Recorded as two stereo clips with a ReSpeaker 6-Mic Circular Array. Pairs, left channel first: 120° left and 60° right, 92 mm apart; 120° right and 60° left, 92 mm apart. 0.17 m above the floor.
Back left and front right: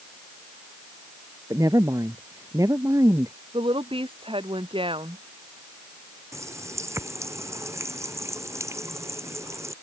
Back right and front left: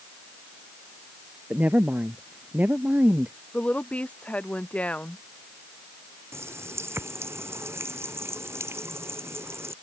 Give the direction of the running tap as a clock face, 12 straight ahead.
12 o'clock.